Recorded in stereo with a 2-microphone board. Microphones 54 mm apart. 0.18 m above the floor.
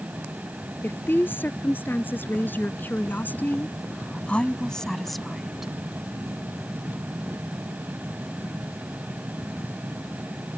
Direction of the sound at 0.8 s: 40° left (ahead or behind).